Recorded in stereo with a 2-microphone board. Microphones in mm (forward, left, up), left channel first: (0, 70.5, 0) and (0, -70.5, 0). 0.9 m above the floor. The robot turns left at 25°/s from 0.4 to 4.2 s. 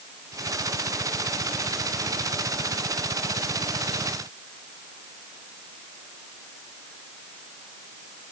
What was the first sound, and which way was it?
Only background noise.